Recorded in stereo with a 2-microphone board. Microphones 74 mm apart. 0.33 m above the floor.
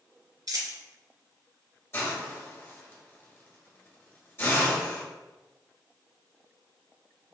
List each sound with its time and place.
0.5 s a dropped coin: 60° right (ahead or behind), 1.3 m
1.9 s a hiss: 35° left (ahead or behind), 1.4 m